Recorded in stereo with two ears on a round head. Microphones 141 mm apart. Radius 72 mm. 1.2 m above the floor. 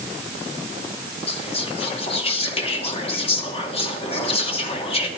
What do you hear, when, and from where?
1.3 s whispering: 40° left (ahead or behind), 2.5 m